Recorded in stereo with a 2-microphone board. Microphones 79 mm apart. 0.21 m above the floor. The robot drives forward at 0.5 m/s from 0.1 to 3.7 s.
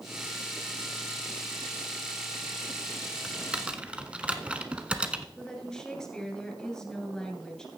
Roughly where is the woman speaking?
Centre.